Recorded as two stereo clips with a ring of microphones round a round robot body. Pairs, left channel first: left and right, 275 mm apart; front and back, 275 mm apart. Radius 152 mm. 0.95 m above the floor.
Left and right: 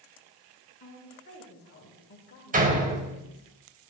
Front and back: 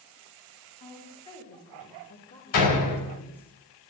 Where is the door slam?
30° right, 3.5 m.